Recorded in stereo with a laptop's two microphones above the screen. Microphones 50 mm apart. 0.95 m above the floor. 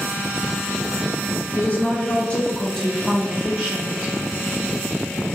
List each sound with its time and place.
1.6 s a woman speaking: 50° left (ahead or behind), 1.2 m; by 4.1 s 30° right (ahead or behind), 1.2 m